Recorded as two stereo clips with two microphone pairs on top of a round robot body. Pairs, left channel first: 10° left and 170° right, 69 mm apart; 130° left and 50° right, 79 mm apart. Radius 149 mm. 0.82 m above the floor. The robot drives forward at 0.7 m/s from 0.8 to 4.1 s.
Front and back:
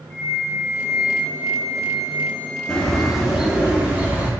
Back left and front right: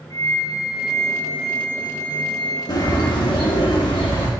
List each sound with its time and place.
0.1 s a flute: 85° left, 0.5 m; by 3.1 s 170° left, 1.7 m
2.7 s a bird: 95° left, 1.7 m; by 4.3 s 125° left, 2 m